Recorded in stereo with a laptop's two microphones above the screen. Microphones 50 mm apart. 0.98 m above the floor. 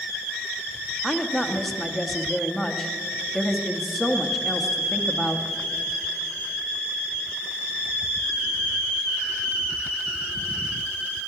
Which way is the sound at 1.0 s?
5° left (ahead or behind).